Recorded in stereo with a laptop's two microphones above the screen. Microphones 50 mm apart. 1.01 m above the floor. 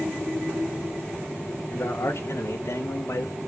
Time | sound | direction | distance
1.7 | a man speaking | 55° left (ahead or behind) | 2.5 m